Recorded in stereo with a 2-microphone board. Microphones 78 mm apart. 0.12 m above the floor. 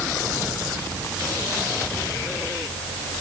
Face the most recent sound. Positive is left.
No sound to turn to.